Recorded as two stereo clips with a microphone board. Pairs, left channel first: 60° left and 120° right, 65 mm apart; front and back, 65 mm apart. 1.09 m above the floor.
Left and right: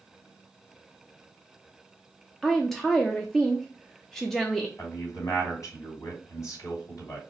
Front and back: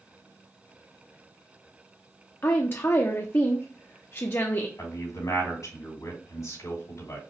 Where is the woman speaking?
25° right, 0.6 m.